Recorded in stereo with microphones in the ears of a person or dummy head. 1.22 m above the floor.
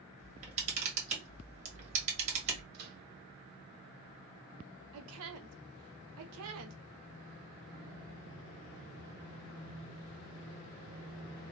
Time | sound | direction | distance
0.2 | a camera shutter | 40° right (ahead or behind) | 1.6 m
2.7 | a microwave | 55° right (ahead or behind) | 1.3 m
4.9 | a woman speaking | 70° right (ahead or behind) | 0.6 m